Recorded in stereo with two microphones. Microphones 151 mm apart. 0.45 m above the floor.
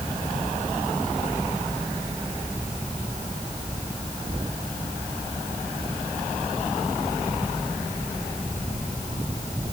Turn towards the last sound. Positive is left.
No sound to turn to.